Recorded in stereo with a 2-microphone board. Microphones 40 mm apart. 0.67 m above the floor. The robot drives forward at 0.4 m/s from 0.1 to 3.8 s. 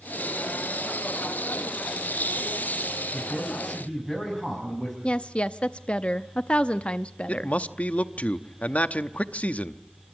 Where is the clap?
I don't hear a clap.